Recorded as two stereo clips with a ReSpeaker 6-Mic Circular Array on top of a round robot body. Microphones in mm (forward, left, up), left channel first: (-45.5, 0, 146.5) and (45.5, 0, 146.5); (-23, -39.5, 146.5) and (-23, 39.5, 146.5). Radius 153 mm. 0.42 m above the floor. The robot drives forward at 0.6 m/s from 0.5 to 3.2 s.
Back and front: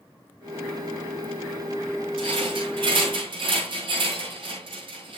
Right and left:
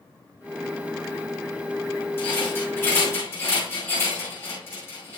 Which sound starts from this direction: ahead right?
A rattle, at 2.2 s.